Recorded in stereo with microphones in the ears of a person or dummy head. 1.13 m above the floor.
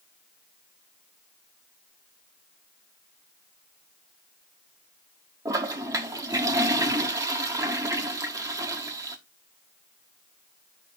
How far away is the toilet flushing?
About 1.1 m.